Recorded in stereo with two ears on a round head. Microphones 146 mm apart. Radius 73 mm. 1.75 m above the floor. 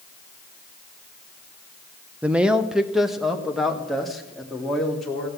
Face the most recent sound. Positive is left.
turn(degrees=0)  # may be behind; listen again after turning